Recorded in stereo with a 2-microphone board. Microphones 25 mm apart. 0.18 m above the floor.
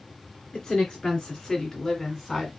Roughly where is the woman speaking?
Left.